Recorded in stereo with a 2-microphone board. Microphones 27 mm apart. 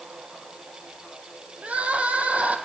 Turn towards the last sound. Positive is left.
turn(degrees=-60)  # may be behind; listen again after turning